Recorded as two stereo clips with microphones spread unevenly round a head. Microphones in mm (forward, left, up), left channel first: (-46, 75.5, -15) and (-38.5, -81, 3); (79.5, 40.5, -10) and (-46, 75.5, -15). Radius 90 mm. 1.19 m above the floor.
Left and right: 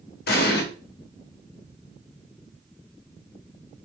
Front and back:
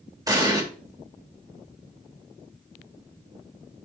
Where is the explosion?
105° left, 0.9 m.